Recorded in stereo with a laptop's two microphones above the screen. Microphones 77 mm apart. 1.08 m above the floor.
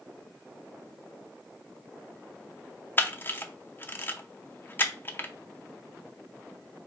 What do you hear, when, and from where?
3.0 s a camera shutter: 30° left (ahead or behind), 0.6 m